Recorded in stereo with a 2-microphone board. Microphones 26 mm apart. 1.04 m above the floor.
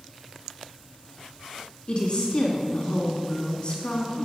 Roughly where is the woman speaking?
Left.